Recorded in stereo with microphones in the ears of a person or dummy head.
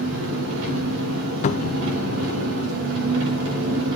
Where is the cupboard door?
35° left (ahead or behind), 0.5 m.